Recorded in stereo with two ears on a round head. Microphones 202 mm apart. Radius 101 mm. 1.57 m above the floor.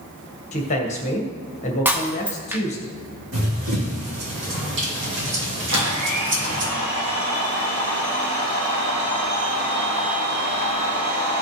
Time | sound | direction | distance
0.5 | a man speaking | 30° left (ahead or behind) | 1.7 m
1.9 | breaking glass | 10° right (ahead or behind) | 0.9 m
3.3 | running footsteps | 50° right (ahead or behind) | 4 m
5.7 | a blender | 80° right | 3.5 m